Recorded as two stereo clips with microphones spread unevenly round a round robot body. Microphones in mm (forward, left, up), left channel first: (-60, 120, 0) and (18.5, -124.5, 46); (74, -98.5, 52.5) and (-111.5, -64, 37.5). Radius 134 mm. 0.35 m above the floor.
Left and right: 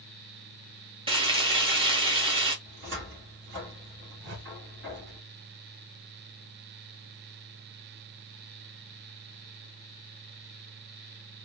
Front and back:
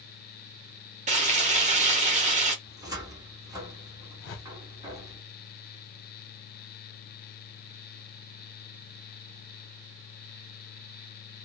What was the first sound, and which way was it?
Frying, 145° right.